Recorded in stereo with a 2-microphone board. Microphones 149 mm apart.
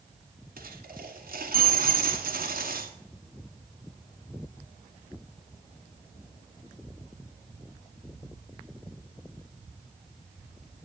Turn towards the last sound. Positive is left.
turn(degrees=-70)  # may be behind; listen again after turning